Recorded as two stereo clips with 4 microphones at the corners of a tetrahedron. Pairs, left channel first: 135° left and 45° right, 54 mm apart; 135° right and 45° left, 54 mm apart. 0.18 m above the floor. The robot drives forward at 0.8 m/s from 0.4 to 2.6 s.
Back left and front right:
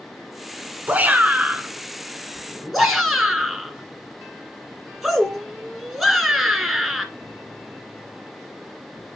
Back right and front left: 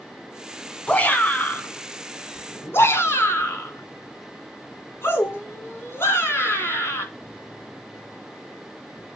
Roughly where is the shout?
Right.